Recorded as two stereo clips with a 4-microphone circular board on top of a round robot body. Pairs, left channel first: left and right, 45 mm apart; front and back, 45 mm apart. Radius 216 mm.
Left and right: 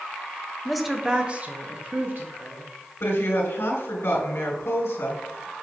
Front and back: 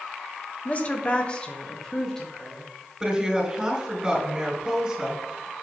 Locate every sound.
0.7 s a woman speaking: 10° left, 1.2 m; by 2.7 s 85° right, 2.0 m
3.0 s a woman speaking: 110° left, 2.5 m